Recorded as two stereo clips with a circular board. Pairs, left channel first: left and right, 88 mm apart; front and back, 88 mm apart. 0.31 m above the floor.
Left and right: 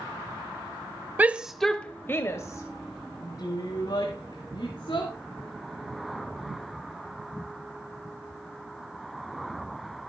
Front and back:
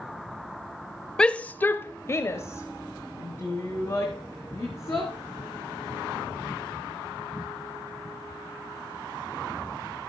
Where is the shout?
65° right, 0.9 m; by 5.1 s 55° left, 3.5 m.